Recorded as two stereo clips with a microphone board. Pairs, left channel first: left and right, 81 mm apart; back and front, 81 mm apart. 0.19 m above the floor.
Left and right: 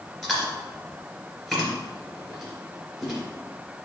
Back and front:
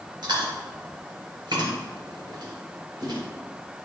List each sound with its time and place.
0.2 s chewing: 5° left, 3 m